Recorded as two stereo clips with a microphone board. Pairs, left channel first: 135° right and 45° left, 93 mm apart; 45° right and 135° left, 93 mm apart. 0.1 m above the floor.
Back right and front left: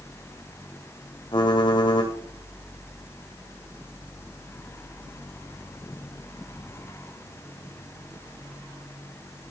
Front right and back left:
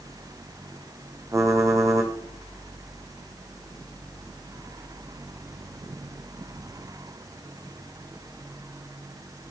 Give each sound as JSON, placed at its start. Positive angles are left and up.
{"t": 1.3, "sound": "typing on a keyboard", "azimuth_deg": -170, "distance_m": 3.5}